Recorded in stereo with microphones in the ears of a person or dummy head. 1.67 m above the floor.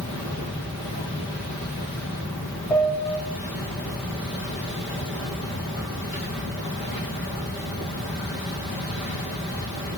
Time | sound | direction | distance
2.7 | a piano | 10° left (ahead or behind) | 1.5 m